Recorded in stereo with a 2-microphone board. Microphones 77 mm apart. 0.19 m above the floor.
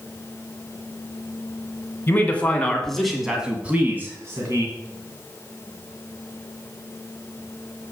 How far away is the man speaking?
About 1.9 m.